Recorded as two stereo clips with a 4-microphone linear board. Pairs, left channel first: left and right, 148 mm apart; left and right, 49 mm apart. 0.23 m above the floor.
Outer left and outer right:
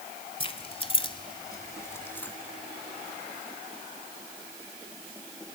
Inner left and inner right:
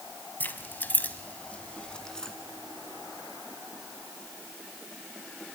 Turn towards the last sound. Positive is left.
turn(degrees=10)  # may be behind; listen again after turning